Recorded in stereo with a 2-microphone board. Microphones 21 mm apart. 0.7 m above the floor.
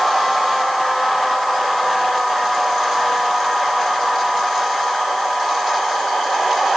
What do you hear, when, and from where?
Only background noise.